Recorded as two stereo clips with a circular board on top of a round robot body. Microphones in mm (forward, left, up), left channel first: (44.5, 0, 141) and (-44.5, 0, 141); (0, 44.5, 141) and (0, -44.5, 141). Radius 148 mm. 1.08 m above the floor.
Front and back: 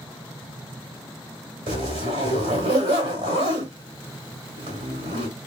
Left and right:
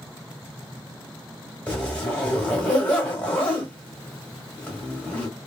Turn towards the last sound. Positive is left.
turn(degrees=165)